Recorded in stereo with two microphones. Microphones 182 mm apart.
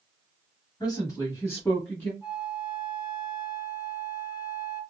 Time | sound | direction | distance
0.8 | a woman speaking | 20° left (ahead or behind) | 1.1 m
2.2 | a flute | 25° left (ahead or behind) | 1.6 m